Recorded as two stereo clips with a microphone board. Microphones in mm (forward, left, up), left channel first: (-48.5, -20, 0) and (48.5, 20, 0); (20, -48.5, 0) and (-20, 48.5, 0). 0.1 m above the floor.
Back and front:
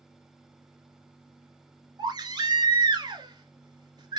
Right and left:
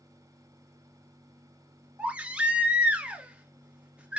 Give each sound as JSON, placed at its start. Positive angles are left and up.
{"t": 2.0, "sound": "a baby crying", "azimuth_deg": 40, "distance_m": 0.7}